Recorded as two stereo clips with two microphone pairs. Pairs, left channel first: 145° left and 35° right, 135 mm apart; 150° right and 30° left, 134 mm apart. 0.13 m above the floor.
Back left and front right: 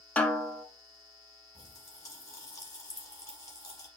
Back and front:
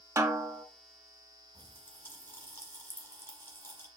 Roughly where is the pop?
Behind.